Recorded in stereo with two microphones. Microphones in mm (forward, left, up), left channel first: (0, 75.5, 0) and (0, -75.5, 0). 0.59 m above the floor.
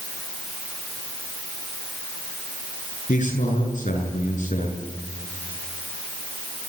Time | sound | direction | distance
3.1 | a man speaking | 55° left (ahead or behind) | 8 m